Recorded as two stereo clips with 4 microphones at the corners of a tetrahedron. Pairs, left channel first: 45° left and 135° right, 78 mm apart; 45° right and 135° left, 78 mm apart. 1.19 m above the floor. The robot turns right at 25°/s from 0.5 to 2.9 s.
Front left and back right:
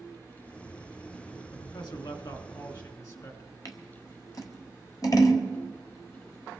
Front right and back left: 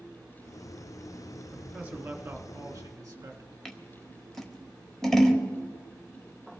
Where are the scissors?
35° left, 1.4 m.